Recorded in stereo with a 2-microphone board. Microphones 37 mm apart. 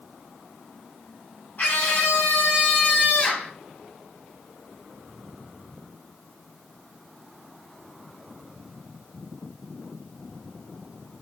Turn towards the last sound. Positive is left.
turn(degrees=30)  # may be behind; listen again after turning